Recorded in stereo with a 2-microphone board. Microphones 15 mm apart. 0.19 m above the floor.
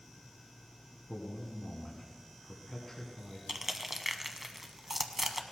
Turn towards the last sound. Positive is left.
turn(degrees=-15)  # may be behind; listen again after turning